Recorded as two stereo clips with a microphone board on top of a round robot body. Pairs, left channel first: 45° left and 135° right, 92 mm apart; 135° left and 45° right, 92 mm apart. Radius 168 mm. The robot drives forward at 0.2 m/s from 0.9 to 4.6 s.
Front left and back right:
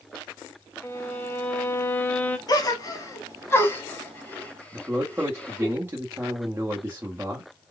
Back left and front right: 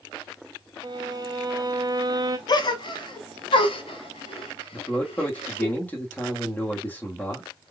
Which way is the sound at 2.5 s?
90° left.